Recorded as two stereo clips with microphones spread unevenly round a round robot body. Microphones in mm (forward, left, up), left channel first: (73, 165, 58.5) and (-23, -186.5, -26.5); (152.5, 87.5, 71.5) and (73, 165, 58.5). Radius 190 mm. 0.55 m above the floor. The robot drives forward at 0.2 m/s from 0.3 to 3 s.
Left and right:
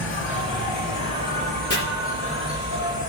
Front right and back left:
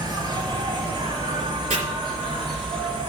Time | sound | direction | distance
0.0 | an insect | 135° left | 1.6 m
1.7 | chopping | 155° left | 3 m